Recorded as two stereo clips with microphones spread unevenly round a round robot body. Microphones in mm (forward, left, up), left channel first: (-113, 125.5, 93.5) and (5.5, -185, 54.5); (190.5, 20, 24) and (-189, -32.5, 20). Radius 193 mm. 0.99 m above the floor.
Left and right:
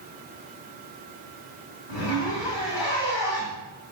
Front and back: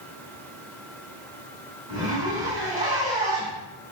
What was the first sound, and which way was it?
A zipper, 105° left.